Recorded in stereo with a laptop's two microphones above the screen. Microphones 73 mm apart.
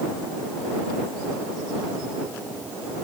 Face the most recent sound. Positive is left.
No sound to turn to.